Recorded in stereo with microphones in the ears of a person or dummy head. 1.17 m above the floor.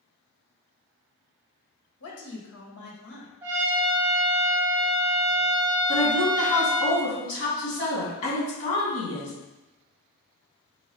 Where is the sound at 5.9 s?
40° left (ahead or behind), 2 m.